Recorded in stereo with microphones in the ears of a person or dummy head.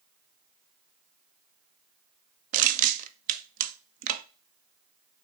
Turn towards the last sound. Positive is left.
turn(degrees=-50)  # may be behind; listen again after turning